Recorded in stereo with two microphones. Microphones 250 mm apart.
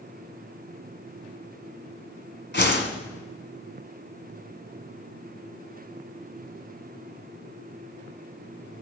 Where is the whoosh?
45° left (ahead or behind), 1.8 m.